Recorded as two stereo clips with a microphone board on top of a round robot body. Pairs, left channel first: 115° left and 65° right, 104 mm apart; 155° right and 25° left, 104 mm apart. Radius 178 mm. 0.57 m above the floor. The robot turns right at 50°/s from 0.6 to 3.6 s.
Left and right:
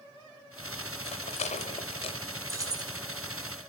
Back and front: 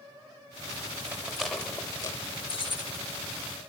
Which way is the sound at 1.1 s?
95° left.